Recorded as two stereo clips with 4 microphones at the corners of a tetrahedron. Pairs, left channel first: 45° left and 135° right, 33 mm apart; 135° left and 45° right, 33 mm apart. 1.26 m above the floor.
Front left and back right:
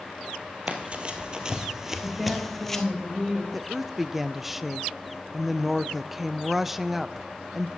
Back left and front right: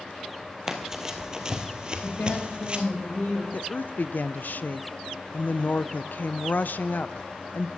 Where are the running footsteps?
115° right, 1.6 m; by 2.8 s 25° right, 1.5 m.